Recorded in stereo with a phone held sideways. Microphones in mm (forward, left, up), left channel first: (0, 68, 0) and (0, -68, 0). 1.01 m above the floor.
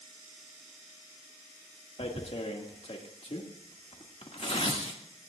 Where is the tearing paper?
55° left (ahead or behind), 2 m.